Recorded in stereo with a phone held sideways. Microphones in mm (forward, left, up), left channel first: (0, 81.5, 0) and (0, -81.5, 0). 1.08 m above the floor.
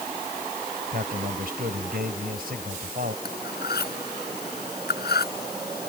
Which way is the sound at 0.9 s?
70° right (ahead or behind).